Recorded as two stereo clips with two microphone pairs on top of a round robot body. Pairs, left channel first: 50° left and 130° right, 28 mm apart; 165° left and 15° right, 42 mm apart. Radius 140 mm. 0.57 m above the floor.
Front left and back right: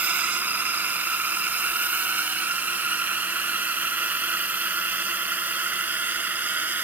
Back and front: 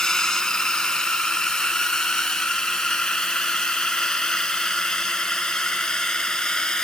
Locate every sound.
0.0 s a drone: 120° right